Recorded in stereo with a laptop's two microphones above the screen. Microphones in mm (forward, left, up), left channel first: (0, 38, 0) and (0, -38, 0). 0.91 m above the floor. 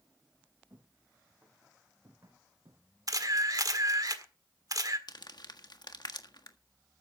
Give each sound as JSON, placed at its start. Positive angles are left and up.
{"t": 0.7, "sound": "footsteps", "side_deg": -35, "distance_m": 5.0}
{"t": 3.1, "sound": "a camera shutter", "side_deg": -55, "distance_m": 1.6}
{"t": 5.1, "sound": "crumpling", "side_deg": 70, "distance_m": 1.5}